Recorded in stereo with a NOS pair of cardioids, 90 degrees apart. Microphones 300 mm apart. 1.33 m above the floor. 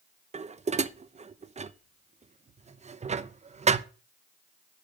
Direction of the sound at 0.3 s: 25° right.